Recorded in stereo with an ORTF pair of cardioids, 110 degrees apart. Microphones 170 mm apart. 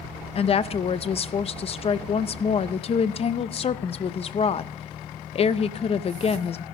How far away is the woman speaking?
About 0.6 m.